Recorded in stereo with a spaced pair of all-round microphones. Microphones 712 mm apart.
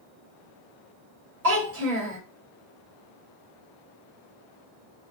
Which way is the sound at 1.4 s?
55° right (ahead or behind).